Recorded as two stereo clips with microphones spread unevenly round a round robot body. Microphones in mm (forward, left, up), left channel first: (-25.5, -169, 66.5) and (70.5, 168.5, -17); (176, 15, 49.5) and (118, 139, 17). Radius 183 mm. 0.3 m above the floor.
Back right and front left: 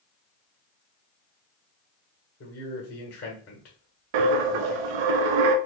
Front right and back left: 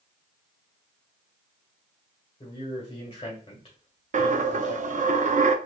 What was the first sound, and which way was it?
A man speaking, 95° right.